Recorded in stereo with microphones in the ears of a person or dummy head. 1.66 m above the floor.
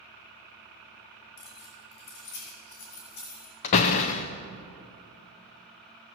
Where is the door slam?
25° left (ahead or behind), 0.5 m.